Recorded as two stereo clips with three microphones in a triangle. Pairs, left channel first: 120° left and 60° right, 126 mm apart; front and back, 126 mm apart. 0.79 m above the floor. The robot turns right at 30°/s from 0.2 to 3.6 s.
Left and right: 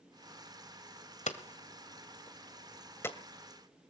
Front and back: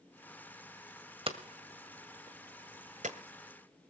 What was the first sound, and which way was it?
Hammering, 135° left.